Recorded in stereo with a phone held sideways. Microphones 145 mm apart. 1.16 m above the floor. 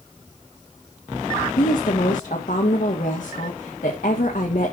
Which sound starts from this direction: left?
A woman speaking, at 1.6 s.